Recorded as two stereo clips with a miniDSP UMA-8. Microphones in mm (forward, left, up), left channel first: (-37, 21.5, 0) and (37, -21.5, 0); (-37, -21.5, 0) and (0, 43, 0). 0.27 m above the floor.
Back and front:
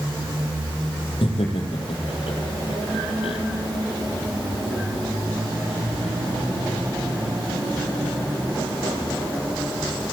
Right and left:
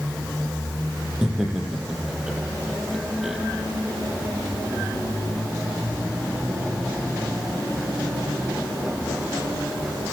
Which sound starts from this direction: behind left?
Laughter, at 1.2 s.